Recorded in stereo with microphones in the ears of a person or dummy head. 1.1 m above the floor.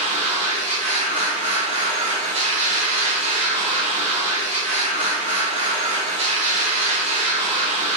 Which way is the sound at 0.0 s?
35° right (ahead or behind).